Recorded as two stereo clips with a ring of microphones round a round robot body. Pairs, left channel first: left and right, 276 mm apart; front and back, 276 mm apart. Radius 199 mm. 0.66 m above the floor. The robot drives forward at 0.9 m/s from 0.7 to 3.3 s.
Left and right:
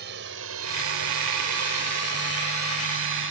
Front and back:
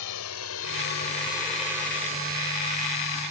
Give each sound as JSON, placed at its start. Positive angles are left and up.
{"t": 0.0, "sound": "a drone", "azimuth_deg": -30}